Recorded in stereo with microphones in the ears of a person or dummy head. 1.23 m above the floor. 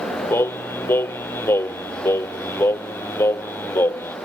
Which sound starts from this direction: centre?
Singing, at 0.3 s.